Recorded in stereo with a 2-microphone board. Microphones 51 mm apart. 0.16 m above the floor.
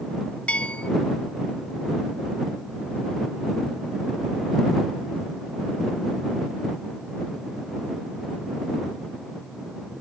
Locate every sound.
0.5 s a bell: 25° left (ahead or behind)